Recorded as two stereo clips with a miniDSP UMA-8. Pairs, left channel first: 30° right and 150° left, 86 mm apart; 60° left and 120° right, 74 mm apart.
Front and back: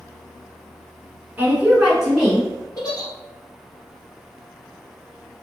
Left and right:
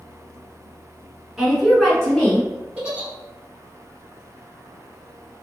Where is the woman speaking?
175° left, 1.2 m; by 2.5 s 40° left, 1.2 m.